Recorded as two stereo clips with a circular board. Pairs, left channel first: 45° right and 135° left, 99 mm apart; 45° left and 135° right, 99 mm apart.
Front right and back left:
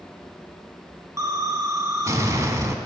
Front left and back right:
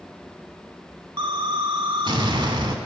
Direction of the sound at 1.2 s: 170° right.